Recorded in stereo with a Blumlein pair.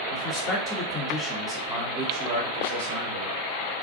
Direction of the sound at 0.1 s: 35° left.